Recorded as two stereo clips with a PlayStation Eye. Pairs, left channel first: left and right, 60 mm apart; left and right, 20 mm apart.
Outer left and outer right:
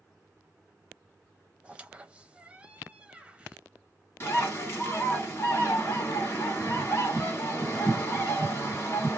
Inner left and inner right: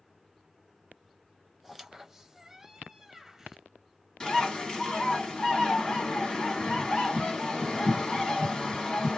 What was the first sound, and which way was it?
A squeak, 20° right (ahead or behind).